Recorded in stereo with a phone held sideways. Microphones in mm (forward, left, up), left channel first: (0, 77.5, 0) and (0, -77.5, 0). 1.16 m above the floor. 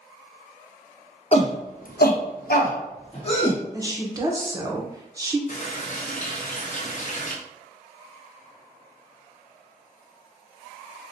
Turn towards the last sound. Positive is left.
turn(degrees=50)  # may be behind; listen again after turning